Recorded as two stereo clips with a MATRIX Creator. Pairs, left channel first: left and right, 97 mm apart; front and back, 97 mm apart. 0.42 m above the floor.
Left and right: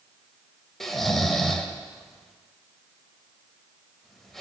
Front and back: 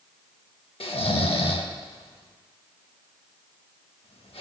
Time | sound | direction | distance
0.8 | snoring | 5° left | 0.6 m